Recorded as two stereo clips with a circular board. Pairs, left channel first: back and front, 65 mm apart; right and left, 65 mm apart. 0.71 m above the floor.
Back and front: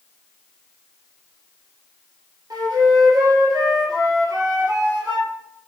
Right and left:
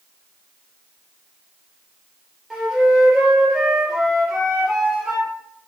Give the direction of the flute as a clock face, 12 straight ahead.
12 o'clock.